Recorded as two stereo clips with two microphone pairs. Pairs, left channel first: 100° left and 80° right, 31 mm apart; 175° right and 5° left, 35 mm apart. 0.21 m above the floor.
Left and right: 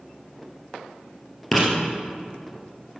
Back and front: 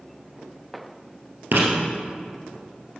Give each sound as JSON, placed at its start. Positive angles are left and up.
{"t": 1.5, "sound": "writing", "azimuth_deg": 10, "distance_m": 2.0}